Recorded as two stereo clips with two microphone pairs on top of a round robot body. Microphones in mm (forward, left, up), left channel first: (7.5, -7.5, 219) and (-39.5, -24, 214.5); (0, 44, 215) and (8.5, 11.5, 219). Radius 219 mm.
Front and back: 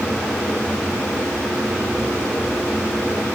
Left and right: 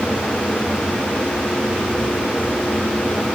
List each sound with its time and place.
Only background noise.